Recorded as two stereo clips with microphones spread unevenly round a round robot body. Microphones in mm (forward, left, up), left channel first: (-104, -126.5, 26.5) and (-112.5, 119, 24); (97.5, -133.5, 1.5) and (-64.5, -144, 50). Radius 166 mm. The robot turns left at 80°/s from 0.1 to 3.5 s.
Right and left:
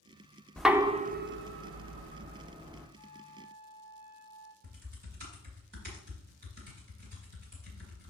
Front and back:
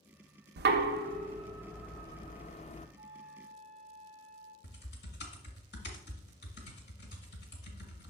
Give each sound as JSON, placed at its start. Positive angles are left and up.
{"t": 0.6, "sound": "knocking", "azimuth_deg": -175, "distance_m": 0.6}
{"t": 3.0, "sound": "a flute", "azimuth_deg": 125, "distance_m": 1.0}
{"t": 4.6, "sound": "typing on a keyboard", "azimuth_deg": 35, "distance_m": 1.5}